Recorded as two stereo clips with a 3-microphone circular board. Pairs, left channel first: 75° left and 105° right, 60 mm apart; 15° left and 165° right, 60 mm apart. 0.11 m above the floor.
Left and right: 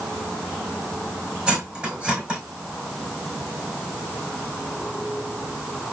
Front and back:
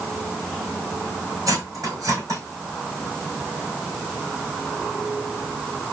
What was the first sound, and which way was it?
Cutlery clinking, straight behind.